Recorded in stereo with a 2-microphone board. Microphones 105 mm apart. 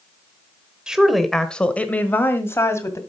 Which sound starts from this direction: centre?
A woman speaking, at 0.9 s.